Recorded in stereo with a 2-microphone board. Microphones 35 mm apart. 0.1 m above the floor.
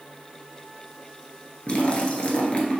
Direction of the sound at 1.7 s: 35° left (ahead or behind).